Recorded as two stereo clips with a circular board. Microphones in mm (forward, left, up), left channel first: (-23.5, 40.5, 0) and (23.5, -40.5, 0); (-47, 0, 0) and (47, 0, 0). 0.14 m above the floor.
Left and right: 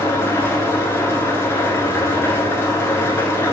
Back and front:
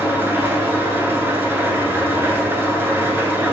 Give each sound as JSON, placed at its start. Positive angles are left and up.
{"t": 0.0, "sound": "an engine running", "azimuth_deg": 65, "distance_m": 0.7}